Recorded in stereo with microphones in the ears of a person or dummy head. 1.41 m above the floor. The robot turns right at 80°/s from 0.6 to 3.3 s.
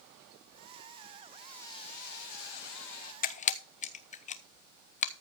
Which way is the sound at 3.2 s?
45° left (ahead or behind).